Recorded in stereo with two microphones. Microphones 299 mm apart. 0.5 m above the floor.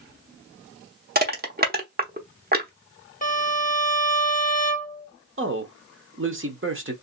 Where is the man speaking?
40° right (ahead or behind), 1.0 m.